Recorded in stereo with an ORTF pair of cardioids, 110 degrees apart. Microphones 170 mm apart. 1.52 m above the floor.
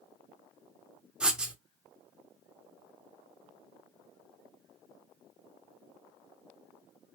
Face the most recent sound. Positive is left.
turn(degrees=-5)